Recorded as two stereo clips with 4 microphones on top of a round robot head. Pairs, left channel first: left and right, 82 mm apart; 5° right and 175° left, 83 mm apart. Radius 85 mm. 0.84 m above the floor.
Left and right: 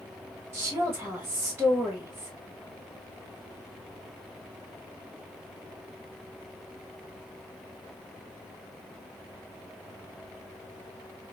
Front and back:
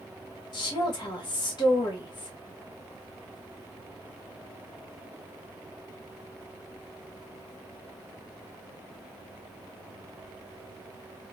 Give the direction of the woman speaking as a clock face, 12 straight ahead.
1 o'clock.